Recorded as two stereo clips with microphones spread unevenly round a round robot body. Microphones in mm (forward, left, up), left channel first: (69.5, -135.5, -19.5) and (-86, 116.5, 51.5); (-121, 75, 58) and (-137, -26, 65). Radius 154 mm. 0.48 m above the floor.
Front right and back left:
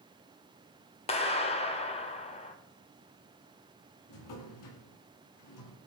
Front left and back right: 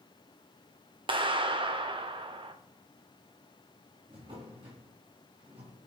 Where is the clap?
115° right, 1.5 m.